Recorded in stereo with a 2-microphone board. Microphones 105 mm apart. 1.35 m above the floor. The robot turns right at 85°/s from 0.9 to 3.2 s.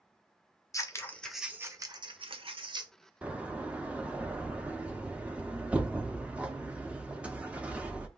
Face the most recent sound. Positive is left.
turn(degrees=-10)  # may be behind; listen again after turning